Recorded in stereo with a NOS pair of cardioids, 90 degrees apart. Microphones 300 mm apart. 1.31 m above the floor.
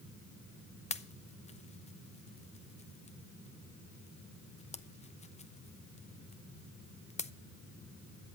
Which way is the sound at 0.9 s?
20° left.